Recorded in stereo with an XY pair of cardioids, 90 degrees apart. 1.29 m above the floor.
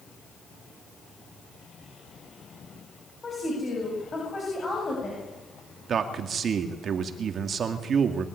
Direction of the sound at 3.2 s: 35° left.